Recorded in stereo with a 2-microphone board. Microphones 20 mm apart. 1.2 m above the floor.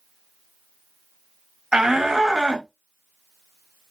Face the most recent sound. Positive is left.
turn(degrees=-45)  # may be behind; listen again after turning